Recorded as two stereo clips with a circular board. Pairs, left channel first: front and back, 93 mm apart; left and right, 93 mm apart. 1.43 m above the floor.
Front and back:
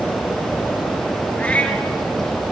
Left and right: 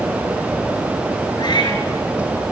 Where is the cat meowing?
75° left, 2.5 m.